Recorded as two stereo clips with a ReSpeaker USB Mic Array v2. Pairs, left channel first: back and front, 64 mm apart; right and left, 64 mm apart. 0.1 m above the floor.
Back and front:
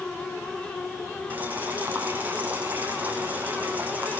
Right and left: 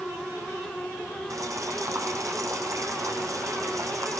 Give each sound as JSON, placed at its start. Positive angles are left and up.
{"t": 1.3, "sound": "boiling", "azimuth_deg": 60, "distance_m": 4.5}